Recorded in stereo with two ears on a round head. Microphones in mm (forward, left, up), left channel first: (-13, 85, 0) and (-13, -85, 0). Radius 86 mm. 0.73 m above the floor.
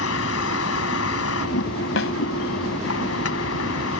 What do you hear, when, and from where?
0.0 s a vehicle: 85° left
2.0 s a snare drum: 70° left (ahead or behind)